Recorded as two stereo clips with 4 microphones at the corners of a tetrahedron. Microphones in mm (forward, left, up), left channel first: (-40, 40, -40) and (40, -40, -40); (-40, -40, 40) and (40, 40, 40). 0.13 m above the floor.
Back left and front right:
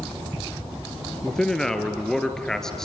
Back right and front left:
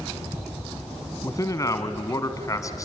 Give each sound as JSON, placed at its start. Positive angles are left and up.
{"t": 1.2, "sound": "a man speaking", "azimuth_deg": -145, "distance_m": 1.6}